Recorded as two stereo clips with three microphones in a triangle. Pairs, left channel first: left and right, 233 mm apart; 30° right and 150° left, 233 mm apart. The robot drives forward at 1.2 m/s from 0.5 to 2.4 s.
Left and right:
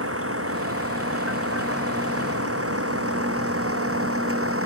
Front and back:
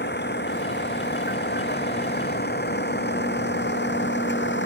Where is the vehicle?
75° right; by 4.7 s 70° right.